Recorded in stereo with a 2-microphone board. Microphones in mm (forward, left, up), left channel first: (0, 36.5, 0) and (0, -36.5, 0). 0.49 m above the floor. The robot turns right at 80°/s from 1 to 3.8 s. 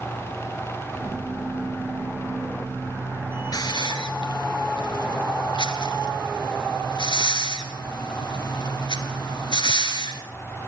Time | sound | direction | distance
3.5 | a hiss | 55° left (ahead or behind) | 3 m